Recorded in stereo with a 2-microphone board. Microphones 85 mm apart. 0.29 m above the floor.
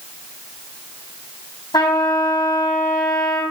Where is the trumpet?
55° left (ahead or behind), 3.5 m.